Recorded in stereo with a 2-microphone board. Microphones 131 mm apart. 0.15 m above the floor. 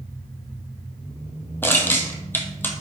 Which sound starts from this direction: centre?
Crushing, at 1.6 s.